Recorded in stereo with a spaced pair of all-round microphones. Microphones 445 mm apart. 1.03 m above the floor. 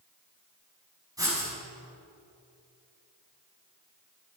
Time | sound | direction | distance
1.2 | writing | 10° right (ahead or behind) | 6 m